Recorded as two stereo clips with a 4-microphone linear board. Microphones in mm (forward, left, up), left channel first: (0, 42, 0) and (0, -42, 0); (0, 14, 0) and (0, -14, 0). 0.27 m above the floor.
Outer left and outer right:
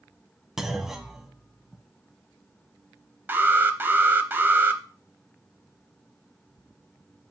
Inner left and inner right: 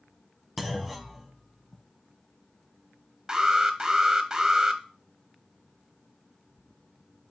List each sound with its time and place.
0.6 s a clunk: 5° right (ahead or behind), 0.8 m
3.3 s an alarm: 25° right (ahead or behind), 0.7 m